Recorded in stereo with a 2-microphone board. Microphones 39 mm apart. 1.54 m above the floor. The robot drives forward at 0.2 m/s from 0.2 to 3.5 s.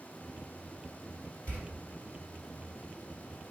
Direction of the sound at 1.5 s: 35° left (ahead or behind).